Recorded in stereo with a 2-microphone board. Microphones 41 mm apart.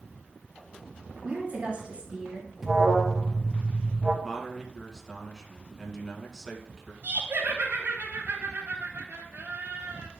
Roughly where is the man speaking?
Centre.